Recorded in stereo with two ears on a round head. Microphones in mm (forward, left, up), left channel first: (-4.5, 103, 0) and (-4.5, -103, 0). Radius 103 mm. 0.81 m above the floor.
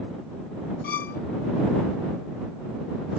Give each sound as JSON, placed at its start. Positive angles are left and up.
{"t": 0.8, "sound": "a violin", "side_deg": 40}